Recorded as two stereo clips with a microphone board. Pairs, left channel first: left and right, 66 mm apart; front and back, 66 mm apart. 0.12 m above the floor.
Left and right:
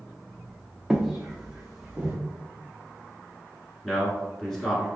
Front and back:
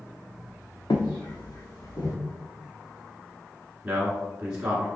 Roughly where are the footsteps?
Ahead.